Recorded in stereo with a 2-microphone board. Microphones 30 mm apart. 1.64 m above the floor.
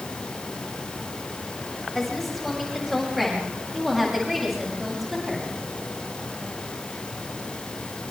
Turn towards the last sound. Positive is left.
turn(degrees=-5)  # may be behind; listen again after turning